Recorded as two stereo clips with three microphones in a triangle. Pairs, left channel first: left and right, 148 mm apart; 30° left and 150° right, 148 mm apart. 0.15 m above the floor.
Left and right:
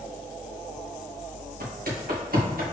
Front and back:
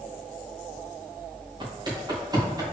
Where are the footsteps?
90° right, 2 m; by 2.6 s 85° right, 3 m.